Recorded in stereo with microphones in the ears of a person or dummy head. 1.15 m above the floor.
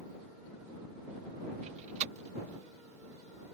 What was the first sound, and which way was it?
A door slam, 40° right (ahead or behind).